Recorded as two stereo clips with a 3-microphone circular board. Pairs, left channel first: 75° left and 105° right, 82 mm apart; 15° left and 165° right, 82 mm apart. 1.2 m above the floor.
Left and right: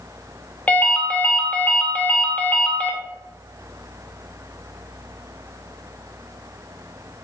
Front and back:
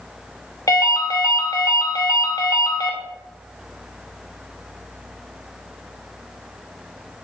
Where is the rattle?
I don't hear a rattle.